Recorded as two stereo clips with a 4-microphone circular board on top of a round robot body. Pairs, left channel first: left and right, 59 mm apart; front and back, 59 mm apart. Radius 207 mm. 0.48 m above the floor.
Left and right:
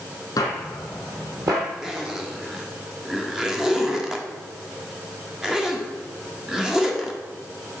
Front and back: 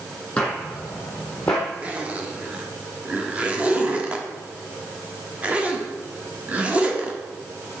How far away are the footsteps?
About 1.0 m.